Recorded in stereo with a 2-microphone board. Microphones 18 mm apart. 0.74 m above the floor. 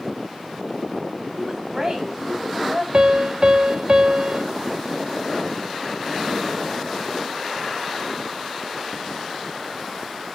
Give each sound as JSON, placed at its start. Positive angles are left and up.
{"t": 1.4, "sound": "a woman speaking", "side_deg": -25, "distance_m": 4.5}
{"t": 2.9, "sound": "a piano", "side_deg": -50, "distance_m": 0.9}